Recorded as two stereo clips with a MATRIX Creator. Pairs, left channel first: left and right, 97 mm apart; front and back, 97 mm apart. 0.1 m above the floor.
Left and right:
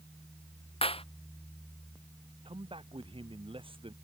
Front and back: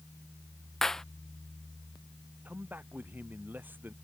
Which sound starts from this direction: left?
A clap, at 0.8 s.